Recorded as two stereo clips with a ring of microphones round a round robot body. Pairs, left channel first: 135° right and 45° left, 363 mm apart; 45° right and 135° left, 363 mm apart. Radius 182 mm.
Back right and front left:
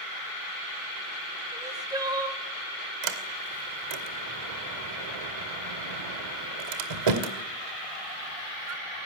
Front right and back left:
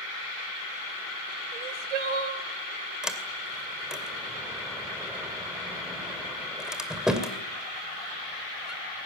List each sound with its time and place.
1.5 s crying: 125° left, 1.4 m
3.0 s a sliding door: 45° left, 2.5 m